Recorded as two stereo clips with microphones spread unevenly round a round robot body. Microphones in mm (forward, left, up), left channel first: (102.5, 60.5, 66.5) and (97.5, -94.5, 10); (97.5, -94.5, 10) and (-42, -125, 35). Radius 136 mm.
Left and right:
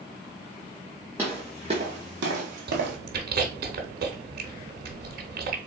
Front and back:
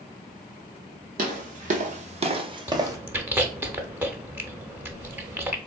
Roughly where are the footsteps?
Behind.